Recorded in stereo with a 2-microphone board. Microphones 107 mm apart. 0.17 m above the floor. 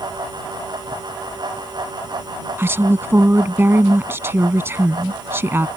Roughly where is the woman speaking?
Right.